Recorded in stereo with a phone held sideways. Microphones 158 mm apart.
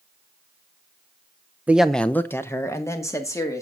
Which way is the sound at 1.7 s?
10° right (ahead or behind).